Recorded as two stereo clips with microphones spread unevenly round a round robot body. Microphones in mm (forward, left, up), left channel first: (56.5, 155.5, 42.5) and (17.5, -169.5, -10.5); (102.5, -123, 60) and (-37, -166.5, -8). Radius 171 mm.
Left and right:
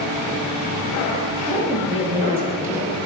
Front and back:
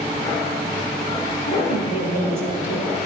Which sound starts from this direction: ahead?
A woman speaking, at 1.5 s.